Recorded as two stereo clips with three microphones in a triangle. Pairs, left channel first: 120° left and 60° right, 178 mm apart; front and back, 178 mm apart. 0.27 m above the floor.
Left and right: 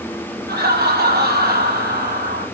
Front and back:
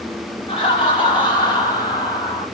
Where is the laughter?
60° right, 7 m; by 2.5 s 65° right, 6 m.